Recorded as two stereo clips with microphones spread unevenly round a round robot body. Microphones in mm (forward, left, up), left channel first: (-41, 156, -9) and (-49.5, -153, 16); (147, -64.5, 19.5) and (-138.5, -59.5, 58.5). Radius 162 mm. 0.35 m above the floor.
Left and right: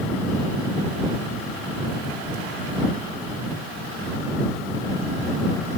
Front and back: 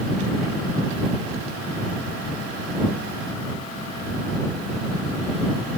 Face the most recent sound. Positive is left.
No sound to turn to.